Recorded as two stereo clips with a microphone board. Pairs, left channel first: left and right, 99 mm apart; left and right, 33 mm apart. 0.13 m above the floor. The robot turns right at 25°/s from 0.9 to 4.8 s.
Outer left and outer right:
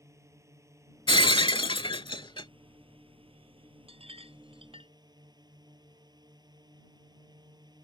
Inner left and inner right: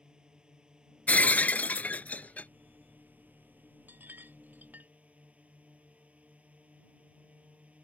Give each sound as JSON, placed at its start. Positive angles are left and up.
{"t": 0.0, "sound": "a drone", "azimuth_deg": -145}
{"t": 1.1, "sound": "breaking glass", "azimuth_deg": 75}
{"t": 3.9, "sound": "a clink", "side_deg": -75}